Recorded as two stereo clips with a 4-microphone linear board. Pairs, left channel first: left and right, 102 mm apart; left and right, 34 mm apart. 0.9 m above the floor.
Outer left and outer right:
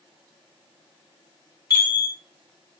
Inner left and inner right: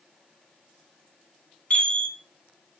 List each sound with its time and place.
1.7 s a chime: 35° left (ahead or behind), 2 m